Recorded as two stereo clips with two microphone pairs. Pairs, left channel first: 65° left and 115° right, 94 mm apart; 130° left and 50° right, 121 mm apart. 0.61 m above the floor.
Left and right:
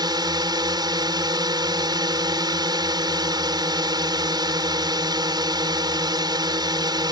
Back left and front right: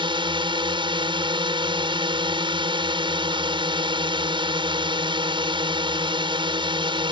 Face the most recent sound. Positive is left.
turn(degrees=-85)